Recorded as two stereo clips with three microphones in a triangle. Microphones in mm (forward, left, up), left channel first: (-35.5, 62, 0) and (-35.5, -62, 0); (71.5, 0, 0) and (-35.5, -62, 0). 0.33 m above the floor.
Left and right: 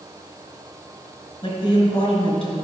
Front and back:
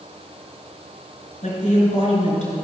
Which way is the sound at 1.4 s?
40° left.